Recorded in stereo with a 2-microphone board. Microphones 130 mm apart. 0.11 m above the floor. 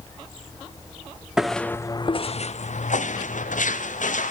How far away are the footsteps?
About 0.5 m.